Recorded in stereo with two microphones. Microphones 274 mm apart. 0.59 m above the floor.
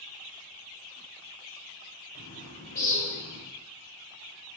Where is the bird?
65° left (ahead or behind), 2.5 m.